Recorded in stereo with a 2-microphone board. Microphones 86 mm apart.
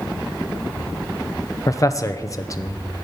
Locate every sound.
1.7 s a man speaking: 35° left (ahead or behind), 0.8 m